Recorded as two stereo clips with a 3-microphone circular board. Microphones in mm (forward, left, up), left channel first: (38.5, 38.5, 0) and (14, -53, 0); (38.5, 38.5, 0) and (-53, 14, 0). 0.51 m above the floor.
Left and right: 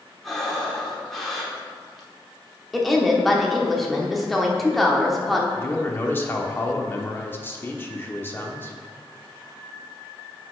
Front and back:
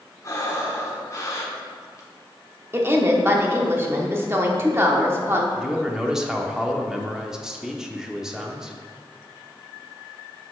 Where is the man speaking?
115° left, 0.9 m.